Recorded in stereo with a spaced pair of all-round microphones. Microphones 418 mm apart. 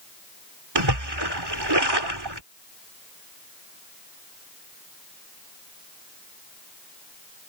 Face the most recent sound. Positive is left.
turn(degrees=-70)  # may be behind; listen again after turning